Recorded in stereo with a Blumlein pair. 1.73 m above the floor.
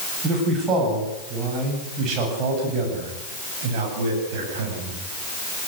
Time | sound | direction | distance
0.2 | a man speaking | 20° right | 9.5 m